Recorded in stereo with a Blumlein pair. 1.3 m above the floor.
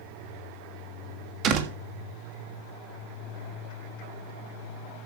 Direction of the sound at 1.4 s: 35° right.